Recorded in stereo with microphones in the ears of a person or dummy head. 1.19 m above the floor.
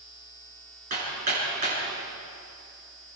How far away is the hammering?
About 9 m.